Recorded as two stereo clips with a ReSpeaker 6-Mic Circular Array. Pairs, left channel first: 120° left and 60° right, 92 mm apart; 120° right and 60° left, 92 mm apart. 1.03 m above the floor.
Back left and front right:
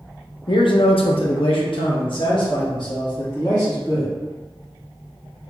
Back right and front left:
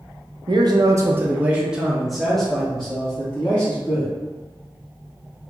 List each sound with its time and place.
0.5 s a man speaking: 90° left, 0.6 m; by 4.1 s 165° left, 1.9 m